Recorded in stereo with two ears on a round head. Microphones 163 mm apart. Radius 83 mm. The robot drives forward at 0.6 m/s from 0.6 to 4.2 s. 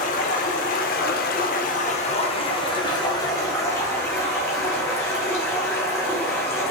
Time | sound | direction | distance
0.0 | running water | 50° left (ahead or behind) | 0.7 m